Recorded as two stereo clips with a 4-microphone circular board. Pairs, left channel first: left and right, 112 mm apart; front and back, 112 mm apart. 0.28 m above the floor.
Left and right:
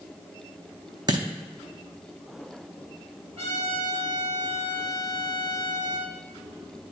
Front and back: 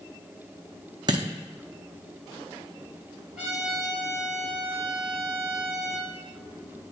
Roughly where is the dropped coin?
Behind right.